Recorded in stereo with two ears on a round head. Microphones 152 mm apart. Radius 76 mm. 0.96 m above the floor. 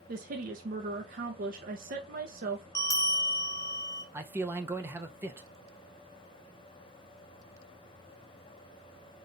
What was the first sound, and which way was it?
A woman speaking, 50° right (ahead or behind).